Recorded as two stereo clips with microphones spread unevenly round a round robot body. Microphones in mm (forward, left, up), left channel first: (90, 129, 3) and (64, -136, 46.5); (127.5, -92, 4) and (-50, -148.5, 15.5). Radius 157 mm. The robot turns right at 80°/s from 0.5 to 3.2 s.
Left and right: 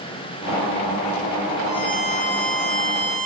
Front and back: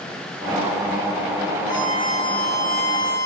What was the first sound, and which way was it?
A violin, 160° left.